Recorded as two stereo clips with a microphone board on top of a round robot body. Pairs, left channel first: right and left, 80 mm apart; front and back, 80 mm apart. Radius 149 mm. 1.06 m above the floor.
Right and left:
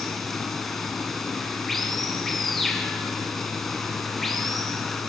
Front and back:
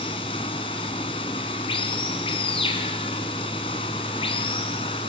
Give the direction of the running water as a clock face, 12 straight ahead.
12 o'clock.